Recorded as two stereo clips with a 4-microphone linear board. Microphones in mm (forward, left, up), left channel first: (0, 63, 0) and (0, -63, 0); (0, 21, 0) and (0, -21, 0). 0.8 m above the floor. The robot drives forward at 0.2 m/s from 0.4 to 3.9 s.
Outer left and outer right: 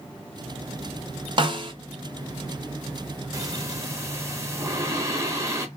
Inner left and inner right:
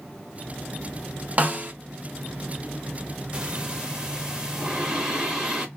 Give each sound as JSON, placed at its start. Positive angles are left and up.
{"t": 1.4, "sound": "a snare drum", "side_deg": -40, "distance_m": 0.7}
{"t": 3.3, "sound": "breathing", "side_deg": -25, "distance_m": 0.6}